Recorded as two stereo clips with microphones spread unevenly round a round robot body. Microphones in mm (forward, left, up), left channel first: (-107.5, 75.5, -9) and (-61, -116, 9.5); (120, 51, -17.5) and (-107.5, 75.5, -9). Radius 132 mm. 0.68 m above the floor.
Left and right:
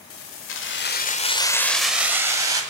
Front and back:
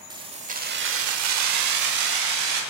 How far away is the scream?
I don't hear a scream.